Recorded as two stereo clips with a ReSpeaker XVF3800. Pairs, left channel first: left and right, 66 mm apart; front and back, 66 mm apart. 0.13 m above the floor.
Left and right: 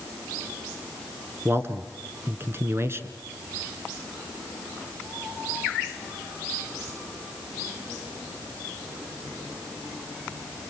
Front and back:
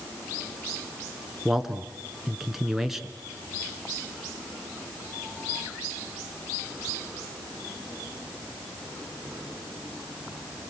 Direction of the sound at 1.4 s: 95° right.